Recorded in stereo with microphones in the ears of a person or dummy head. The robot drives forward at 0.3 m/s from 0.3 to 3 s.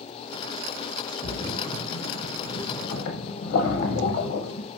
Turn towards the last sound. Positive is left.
turn(degrees=60)  # may be behind; listen again after turning